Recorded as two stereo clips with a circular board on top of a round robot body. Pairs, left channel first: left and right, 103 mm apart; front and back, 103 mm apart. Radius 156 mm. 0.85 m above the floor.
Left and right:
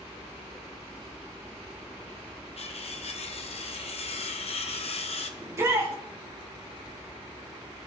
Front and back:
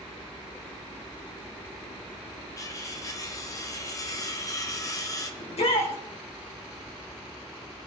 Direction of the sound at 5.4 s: 25° right.